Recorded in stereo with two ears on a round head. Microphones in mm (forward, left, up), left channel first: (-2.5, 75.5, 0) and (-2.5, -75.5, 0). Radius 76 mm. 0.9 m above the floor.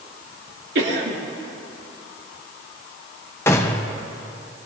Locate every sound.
0.8 s a cough: 70° right (ahead or behind), 3 m
3.5 s a gunshot: 15° left (ahead or behind), 0.9 m